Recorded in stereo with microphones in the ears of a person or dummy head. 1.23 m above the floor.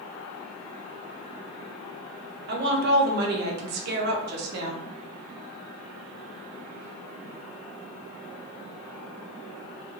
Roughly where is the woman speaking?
Right.